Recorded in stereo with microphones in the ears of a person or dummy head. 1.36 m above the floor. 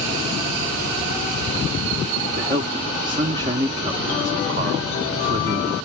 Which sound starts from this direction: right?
A man speaking, at 2.4 s.